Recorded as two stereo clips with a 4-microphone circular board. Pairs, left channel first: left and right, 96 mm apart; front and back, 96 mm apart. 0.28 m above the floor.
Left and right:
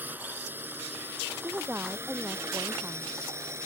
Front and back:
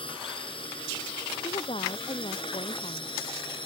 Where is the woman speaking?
20° right.